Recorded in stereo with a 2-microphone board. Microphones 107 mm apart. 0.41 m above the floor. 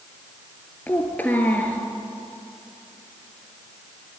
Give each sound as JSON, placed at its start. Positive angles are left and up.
{"t": 0.9, "sound": "a child speaking", "side_deg": 15, "distance_m": 3.5}